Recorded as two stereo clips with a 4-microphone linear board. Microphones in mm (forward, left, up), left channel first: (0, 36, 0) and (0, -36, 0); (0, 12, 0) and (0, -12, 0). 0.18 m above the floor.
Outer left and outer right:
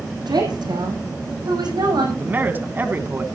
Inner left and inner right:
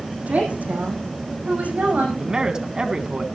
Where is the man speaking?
30° right (ahead or behind), 1.4 m.